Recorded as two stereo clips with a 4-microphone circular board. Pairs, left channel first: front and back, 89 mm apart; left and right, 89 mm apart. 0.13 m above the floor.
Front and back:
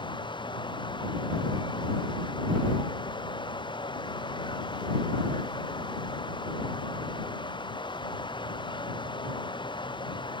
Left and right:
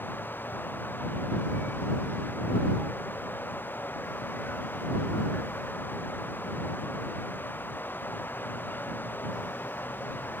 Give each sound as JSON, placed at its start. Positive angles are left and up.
{"t": 0.0, "sound": "running water", "azimuth_deg": 25}